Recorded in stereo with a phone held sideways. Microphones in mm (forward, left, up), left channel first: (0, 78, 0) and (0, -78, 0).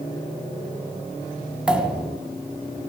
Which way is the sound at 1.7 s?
5° right (ahead or behind).